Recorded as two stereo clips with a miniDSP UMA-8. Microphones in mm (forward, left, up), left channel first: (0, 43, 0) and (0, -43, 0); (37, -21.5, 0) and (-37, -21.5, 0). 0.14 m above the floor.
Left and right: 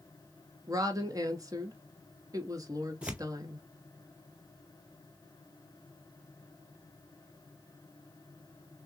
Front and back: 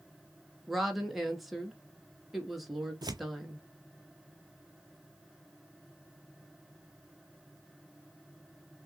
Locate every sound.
0.7 s a woman speaking: 90° right, 1.5 m
3.0 s tearing paper: 165° right, 0.5 m